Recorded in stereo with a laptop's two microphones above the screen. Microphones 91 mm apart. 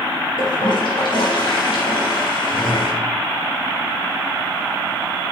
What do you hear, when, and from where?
0.4 s a toilet flushing: 65° left (ahead or behind), 4 m